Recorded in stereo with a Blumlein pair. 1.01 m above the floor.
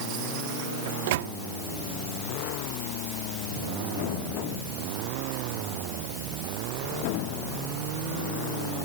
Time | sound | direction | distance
0.9 | a microwave | 50° right | ?